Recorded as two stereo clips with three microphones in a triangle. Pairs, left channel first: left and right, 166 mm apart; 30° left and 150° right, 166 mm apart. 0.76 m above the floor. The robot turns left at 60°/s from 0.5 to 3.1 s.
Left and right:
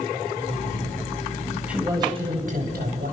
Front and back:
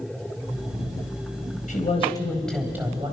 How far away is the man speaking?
About 4 m.